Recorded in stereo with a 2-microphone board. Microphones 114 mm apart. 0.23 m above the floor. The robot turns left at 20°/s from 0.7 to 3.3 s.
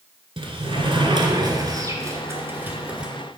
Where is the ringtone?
No ringtone in this recording.